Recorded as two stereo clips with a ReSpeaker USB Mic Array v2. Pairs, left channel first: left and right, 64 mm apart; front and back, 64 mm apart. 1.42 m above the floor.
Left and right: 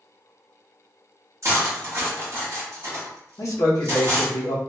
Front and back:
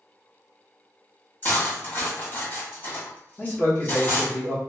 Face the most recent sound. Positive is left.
turn(degrees=65)